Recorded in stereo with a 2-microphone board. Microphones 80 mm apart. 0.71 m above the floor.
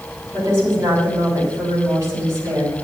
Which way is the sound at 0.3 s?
40° right (ahead or behind).